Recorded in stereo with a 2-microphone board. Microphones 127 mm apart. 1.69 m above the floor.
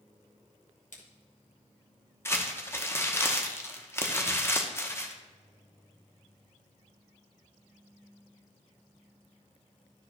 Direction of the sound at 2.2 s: 20° left (ahead or behind).